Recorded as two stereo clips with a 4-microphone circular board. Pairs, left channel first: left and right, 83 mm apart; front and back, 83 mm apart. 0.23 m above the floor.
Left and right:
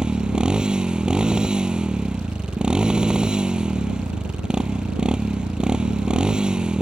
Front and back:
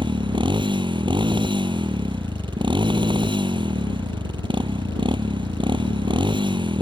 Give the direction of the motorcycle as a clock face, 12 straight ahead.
6 o'clock.